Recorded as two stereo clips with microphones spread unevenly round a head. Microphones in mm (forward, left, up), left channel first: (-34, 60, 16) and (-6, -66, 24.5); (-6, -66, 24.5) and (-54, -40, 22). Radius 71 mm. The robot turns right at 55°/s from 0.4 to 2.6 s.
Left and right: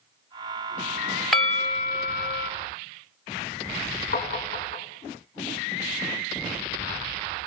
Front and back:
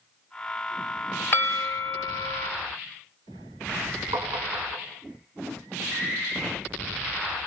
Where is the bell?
5° left, 1.1 m; by 2.5 s 70° left, 1.1 m.